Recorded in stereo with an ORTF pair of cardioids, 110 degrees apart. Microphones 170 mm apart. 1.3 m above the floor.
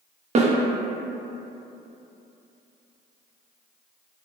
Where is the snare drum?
40° right, 0.6 m.